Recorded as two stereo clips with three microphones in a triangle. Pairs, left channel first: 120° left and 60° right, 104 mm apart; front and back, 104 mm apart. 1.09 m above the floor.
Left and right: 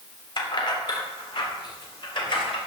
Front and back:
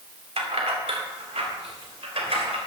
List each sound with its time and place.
0.4 s keys jangling: 165° left, 2 m; by 2.6 s 160° left, 3.5 m